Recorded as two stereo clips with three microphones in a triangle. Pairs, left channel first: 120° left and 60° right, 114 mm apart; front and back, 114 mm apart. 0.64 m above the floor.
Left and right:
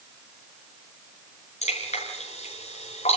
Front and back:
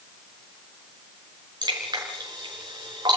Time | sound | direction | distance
1.6 | dripping | 130° left | 6 m